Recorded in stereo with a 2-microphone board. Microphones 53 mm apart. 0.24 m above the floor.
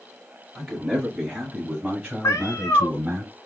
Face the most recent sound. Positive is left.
turn(degrees=75)  # may be behind; listen again after turning